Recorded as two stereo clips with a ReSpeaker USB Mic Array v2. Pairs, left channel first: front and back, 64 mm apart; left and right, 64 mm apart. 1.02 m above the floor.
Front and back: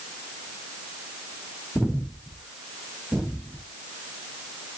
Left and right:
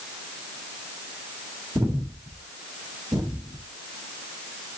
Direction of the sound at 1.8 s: 95° right.